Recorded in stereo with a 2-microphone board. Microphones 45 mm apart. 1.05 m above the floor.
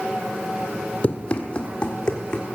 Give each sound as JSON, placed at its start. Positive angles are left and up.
{"t": 1.0, "sound": "running footsteps", "side_deg": 30, "distance_m": 1.3}